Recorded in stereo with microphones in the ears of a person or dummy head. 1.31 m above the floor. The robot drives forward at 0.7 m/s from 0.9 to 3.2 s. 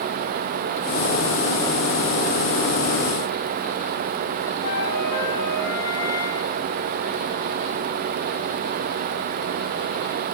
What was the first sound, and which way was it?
A flute, 80° left.